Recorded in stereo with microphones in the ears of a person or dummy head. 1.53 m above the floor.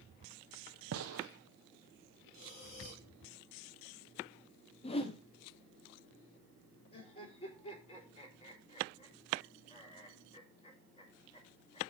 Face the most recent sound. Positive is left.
turn(degrees=35)  # may be behind; listen again after turning